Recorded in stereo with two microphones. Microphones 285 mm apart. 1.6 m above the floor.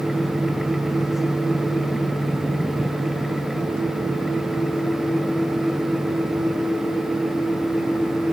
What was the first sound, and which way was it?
Only background noise.